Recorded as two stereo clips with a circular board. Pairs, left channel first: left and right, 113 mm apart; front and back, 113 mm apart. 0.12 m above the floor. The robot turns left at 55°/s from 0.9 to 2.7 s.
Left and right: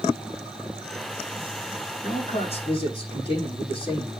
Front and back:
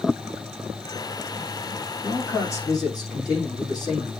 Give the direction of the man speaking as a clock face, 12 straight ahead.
9 o'clock.